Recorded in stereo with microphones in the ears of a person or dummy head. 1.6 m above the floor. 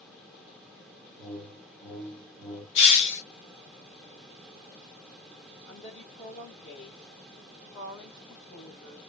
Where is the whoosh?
20° left (ahead or behind), 1.5 m.